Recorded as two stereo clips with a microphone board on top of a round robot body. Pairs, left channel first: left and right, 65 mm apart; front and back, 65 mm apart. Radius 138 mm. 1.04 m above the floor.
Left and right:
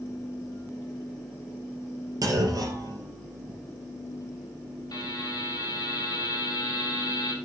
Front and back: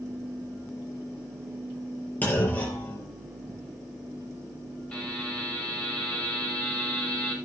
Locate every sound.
2.2 s a clunk: 65° right, 4 m
4.9 s a buzzer: 75° left, 4.5 m